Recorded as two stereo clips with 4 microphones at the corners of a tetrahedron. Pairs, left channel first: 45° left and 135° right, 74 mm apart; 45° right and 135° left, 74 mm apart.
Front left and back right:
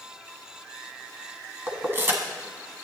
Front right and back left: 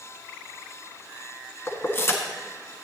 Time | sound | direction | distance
1.7 | keys jangling | 85° right | 1.3 m